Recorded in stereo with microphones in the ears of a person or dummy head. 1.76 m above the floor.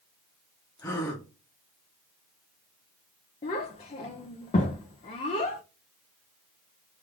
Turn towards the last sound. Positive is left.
turn(degrees=30)  # may be behind; listen again after turning